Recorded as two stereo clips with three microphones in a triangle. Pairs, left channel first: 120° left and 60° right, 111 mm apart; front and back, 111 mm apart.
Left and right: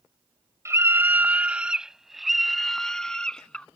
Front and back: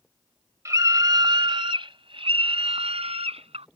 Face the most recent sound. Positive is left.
turn(degrees=-160)